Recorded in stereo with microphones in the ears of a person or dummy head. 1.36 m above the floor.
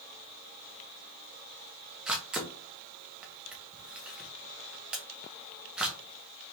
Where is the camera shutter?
5° right (ahead or behind), 0.6 m.